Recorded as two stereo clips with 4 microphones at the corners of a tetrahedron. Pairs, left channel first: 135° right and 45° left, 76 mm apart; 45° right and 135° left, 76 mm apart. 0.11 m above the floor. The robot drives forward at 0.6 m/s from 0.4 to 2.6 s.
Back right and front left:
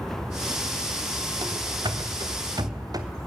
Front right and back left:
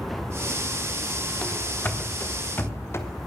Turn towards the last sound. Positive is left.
turn(degrees=10)